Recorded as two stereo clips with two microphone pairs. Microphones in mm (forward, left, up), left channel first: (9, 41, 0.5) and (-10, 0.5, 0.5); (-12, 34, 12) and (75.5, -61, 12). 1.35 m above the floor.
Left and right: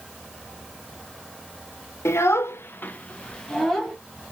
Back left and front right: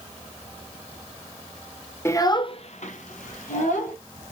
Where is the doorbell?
No doorbell in this recording.